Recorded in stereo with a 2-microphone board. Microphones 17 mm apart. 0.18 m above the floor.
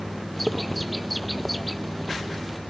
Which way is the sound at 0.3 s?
Centre (ahead or behind).